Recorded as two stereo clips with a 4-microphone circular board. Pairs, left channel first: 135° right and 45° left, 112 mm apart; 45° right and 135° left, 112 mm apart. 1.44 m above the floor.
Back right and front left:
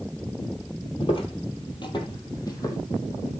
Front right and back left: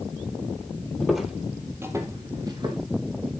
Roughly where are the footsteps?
Behind right.